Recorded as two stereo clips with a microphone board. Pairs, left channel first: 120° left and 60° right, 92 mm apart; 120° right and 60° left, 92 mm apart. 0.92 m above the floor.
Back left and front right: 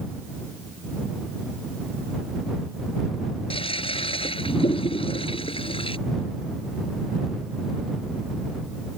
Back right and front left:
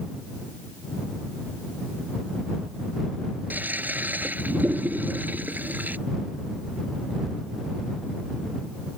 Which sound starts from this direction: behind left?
A toilet flushing, at 3.5 s.